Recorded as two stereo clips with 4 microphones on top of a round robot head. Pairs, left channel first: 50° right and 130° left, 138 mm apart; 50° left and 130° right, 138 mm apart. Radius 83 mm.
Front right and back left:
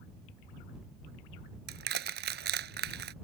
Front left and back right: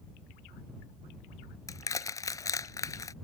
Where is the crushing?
115° left.